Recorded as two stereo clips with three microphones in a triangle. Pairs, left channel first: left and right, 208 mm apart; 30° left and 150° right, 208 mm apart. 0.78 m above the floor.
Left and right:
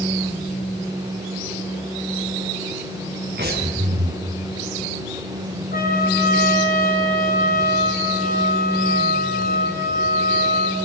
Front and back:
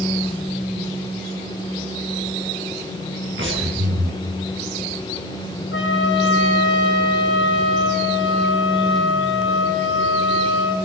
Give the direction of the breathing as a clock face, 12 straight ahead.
4 o'clock.